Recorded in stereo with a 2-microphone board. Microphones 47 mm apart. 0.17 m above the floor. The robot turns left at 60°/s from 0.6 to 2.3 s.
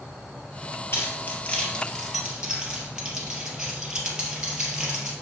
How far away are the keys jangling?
About 2.5 m.